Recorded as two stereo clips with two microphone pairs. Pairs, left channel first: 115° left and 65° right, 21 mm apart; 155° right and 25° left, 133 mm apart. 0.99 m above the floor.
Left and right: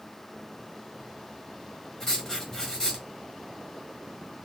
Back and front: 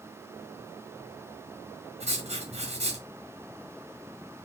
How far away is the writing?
About 1.3 m.